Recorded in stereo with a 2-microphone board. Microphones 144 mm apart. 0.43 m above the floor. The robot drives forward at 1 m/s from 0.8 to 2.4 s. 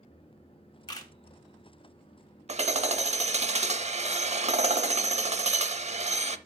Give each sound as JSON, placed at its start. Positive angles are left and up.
{"t": 0.9, "sound": "a camera shutter", "side_deg": 30, "distance_m": 1.3}
{"t": 2.5, "sound": "hammering", "side_deg": -50, "distance_m": 0.6}